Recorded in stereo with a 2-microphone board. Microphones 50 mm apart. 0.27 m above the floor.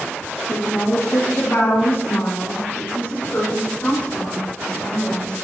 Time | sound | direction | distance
0.5 | a woman speaking | 75° left (ahead or behind) | 4.5 m